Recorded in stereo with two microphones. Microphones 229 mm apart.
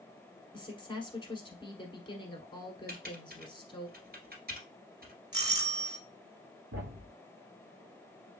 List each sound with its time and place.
0.5 s a woman speaking: 20° left (ahead or behind), 1.1 m
2.9 s typing on a keyboard: 45° right (ahead or behind), 1.6 m
5.3 s a doorbell: 20° right (ahead or behind), 1.6 m
6.7 s a thud: 70° right (ahead or behind), 1.6 m